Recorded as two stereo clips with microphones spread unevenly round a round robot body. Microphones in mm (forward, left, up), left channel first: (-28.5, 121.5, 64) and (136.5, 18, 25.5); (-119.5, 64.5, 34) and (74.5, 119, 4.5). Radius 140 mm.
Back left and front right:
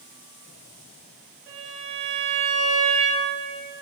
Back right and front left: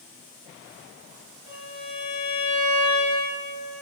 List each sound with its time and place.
1.5 s a violin: 45° right, 5.5 m